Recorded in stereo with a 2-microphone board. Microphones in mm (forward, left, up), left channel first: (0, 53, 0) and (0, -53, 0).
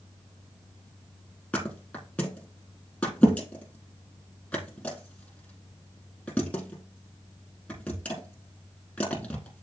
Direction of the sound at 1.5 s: 10° left (ahead or behind).